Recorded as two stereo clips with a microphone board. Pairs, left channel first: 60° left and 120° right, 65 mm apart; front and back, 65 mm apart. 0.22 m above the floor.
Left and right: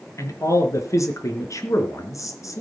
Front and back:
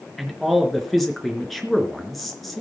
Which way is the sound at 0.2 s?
90° left.